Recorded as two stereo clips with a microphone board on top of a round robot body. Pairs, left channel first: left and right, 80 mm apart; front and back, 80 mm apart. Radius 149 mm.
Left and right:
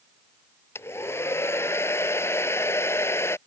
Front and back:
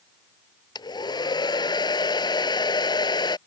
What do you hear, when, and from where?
0.8 s a hair dryer: 30° left